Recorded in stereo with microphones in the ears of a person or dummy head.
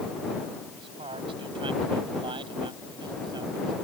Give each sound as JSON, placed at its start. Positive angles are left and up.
{"t": 0.7, "sound": "a man speaking", "side_deg": -35}